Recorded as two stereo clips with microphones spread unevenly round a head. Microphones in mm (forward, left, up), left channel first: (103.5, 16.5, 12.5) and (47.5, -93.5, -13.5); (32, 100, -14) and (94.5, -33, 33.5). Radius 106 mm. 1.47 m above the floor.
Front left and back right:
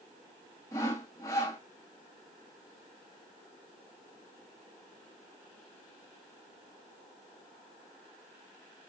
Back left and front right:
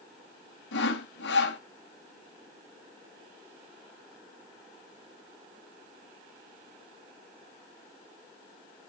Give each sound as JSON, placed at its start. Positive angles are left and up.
{"t": 0.7, "sound": "sawing", "azimuth_deg": 130, "distance_m": 3.0}